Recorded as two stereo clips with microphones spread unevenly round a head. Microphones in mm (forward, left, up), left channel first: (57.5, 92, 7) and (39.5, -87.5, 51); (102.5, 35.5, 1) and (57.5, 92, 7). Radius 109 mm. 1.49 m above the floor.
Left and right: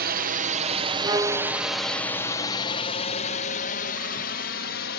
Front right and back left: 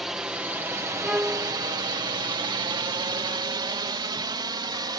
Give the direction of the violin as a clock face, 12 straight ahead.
5 o'clock.